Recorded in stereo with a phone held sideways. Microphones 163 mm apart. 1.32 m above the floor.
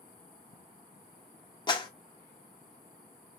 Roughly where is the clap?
Left.